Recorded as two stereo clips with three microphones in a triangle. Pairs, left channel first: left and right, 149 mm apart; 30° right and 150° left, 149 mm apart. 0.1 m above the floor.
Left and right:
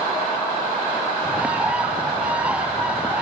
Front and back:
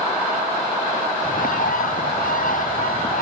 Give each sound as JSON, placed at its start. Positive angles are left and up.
{"t": 1.2, "sound": "a bird", "azimuth_deg": -10}